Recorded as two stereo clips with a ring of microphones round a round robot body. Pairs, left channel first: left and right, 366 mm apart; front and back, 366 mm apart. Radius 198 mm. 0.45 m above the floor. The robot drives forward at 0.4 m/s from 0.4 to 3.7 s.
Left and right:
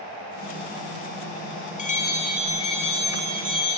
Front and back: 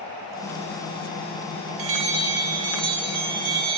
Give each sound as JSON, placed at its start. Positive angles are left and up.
{"t": 1.8, "sound": "a bell", "azimuth_deg": 160, "distance_m": 3.0}